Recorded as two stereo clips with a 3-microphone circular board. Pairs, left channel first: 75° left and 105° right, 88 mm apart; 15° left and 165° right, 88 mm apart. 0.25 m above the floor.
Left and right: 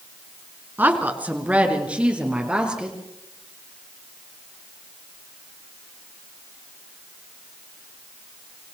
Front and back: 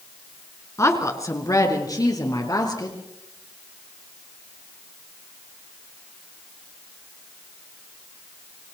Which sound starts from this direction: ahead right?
A woman speaking, at 0.8 s.